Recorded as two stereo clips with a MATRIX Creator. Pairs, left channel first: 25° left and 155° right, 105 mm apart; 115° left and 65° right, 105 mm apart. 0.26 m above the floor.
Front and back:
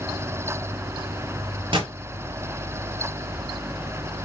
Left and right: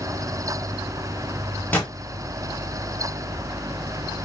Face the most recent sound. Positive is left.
turn(degrees=-175)